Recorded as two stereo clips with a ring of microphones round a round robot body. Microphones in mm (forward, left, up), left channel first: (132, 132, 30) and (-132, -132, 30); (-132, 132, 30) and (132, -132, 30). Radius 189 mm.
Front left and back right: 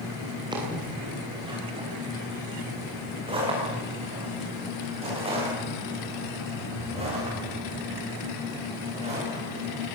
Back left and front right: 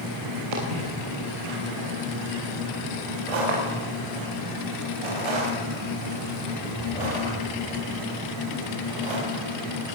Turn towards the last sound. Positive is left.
turn(degrees=-60)